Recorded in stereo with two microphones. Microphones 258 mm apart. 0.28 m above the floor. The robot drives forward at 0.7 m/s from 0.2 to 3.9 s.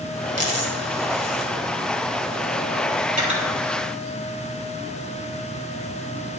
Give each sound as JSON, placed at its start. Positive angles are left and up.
{"t": 0.4, "sound": "a dropped coin", "side_deg": -75, "distance_m": 2.5}
{"t": 3.1, "sound": "cutlery clinking", "side_deg": -30, "distance_m": 4.0}